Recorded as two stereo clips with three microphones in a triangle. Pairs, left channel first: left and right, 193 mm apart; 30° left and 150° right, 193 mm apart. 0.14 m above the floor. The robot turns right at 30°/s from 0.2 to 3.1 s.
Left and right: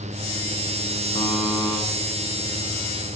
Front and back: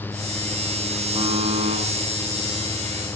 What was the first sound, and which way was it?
A buzzer, 145° left.